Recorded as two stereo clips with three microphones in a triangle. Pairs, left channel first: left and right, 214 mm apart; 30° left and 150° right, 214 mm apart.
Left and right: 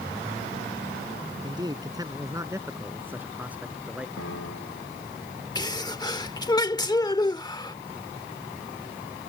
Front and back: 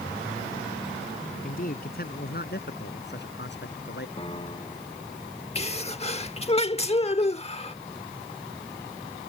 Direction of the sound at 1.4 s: 20° right.